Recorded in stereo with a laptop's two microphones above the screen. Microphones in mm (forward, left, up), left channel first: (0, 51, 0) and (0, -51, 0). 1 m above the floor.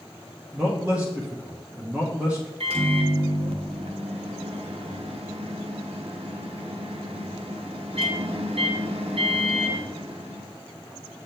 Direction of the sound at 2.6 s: 70° right (ahead or behind).